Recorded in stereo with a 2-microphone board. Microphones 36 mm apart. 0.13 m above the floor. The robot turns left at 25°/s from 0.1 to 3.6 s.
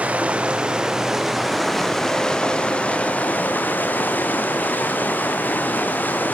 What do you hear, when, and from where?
0.0 s running water: 145° right, 2.5 m; by 6.3 s 130° left, 2.5 m